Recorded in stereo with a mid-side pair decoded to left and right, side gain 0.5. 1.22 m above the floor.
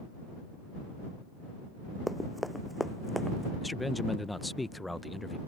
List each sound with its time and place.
2.1 s running footsteps: straight ahead; by 3.5 s 5° left
3.6 s a man speaking: 5° left